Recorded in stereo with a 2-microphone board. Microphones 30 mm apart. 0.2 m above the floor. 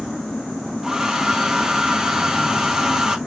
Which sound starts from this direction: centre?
A hair dryer, at 0.8 s.